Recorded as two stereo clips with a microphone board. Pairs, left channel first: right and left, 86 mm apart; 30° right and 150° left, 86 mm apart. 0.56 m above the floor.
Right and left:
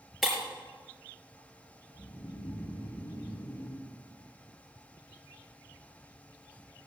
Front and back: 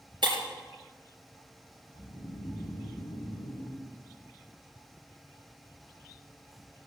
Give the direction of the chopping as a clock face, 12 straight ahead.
I don't hear chopping.